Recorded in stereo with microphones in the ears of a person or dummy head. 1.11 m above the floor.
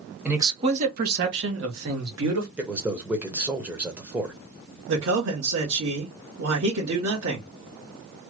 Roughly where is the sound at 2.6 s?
Centre.